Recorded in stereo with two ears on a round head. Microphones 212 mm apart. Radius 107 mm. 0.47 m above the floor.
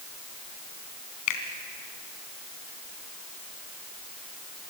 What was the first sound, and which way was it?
A finger snap, 80° left.